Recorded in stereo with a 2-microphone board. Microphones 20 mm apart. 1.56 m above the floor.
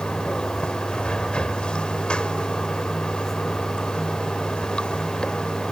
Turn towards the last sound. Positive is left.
turn(degrees=50)  # may be behind; listen again after turning